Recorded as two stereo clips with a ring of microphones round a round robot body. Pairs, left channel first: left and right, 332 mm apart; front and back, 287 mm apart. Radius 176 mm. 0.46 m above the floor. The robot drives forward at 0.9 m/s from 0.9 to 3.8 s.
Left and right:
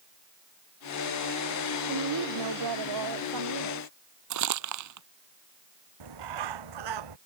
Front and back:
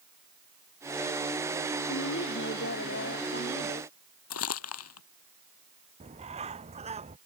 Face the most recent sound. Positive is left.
turn(degrees=-105)